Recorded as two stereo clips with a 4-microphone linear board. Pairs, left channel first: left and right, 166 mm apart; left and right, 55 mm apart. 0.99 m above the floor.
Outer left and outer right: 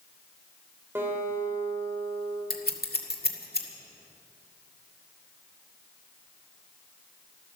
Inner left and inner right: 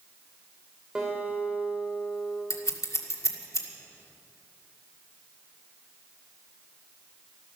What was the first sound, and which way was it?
A guitar, 15° right (ahead or behind).